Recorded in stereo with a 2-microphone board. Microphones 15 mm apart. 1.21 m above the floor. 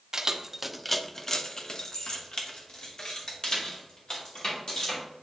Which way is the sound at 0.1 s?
40° right (ahead or behind).